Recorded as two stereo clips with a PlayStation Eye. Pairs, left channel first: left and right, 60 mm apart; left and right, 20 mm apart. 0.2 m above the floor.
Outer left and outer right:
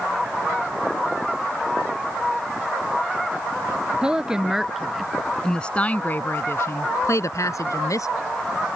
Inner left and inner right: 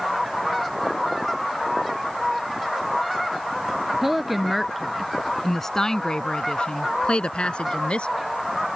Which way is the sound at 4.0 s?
15° right (ahead or behind).